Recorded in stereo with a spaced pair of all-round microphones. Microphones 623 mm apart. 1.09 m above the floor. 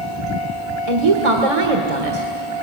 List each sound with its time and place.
0.9 s a woman speaking: 65° right (ahead or behind), 1.7 m